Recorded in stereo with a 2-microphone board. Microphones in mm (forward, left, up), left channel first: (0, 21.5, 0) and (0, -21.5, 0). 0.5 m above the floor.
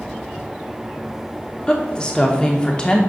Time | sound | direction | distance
1.7 | a woman speaking | 20° left (ahead or behind) | 0.8 m